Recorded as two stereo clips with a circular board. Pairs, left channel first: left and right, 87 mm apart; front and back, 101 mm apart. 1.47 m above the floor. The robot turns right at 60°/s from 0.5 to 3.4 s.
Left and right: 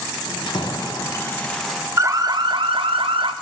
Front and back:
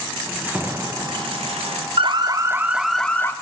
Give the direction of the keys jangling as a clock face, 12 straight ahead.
8 o'clock.